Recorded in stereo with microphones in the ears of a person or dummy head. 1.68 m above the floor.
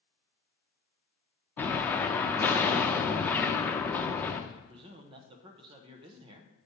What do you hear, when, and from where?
1.6 s an explosion: 15° left (ahead or behind), 0.5 m
4.5 s a man speaking: 30° right (ahead or behind), 0.8 m